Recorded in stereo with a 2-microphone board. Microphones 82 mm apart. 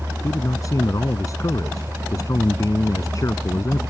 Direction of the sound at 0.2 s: 40° left (ahead or behind).